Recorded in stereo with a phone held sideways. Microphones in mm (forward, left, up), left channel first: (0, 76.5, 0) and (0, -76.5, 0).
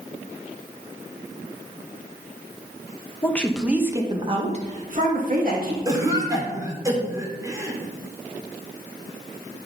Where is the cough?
20° right (ahead or behind), 2.5 m.